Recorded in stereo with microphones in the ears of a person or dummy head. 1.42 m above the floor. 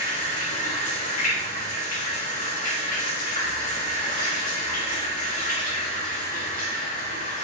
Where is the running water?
40° left (ahead or behind), 1.4 m.